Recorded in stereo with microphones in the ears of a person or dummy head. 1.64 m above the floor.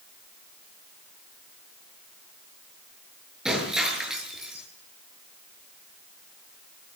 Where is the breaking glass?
Centre (ahead or behind), 8 m.